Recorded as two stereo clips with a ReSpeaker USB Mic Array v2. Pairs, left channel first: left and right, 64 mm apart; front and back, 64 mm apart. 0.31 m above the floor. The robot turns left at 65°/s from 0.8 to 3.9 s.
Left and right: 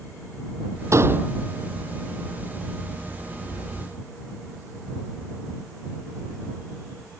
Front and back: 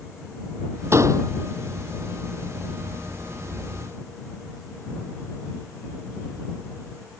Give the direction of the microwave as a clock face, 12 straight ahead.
No microwave in this recording.